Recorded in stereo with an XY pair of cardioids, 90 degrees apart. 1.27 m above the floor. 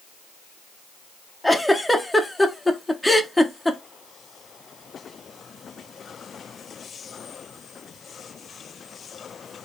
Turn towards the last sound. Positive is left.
turn(degrees=15)